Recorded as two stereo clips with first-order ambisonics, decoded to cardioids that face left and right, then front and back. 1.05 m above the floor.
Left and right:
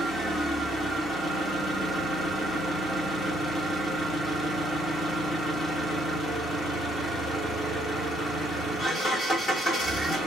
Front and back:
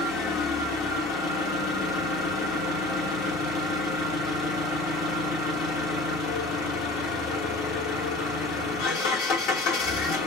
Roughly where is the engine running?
Ahead.